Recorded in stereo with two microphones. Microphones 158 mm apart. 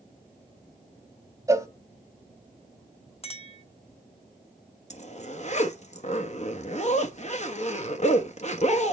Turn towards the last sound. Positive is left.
turn(degrees=45)  # may be behind; listen again after turning